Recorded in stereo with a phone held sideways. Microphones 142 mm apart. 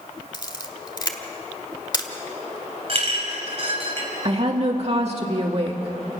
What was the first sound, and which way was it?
A camera shutter, 30° left (ahead or behind).